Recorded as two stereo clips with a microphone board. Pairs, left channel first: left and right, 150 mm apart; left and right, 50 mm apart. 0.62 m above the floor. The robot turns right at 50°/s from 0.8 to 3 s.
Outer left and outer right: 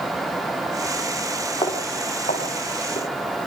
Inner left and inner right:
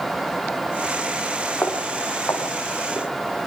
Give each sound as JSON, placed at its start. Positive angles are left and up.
{"t": 1.6, "sound": "footsteps", "side_deg": 35, "distance_m": 5.5}